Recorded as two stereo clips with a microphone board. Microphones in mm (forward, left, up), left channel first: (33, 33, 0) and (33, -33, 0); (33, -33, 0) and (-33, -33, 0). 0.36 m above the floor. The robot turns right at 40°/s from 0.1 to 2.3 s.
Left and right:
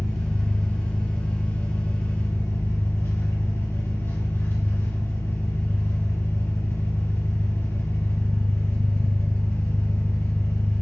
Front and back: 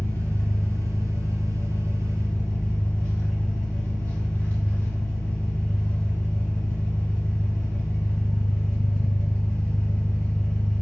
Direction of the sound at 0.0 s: 20° right.